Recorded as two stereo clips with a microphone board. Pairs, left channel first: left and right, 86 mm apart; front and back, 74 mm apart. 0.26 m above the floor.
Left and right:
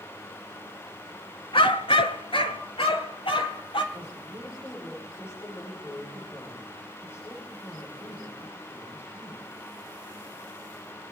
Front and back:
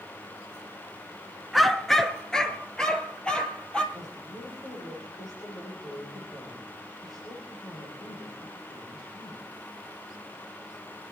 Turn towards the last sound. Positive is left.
turn(degrees=25)